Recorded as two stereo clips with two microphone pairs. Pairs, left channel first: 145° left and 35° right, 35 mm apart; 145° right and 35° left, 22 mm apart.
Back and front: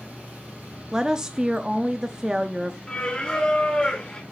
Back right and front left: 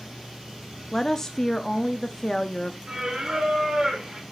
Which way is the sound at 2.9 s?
85° left.